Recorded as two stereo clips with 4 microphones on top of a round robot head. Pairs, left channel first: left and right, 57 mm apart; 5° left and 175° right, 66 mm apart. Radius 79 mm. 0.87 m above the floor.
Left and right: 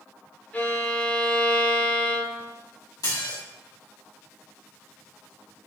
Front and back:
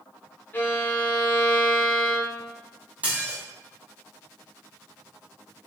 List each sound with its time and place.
0.5 s a violin: 45° left, 0.6 m
3.0 s dishes clattering: 115° left, 0.9 m